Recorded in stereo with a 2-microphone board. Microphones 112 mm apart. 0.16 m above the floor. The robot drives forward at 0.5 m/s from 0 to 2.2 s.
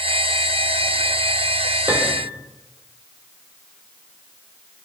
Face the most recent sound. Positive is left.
turn(degrees=-20)  # may be behind; listen again after turning